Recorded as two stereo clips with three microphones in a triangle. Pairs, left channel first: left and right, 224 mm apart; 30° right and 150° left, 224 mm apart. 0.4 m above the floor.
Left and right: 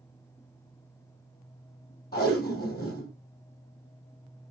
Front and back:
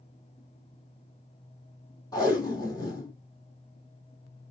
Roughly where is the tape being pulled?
Ahead left.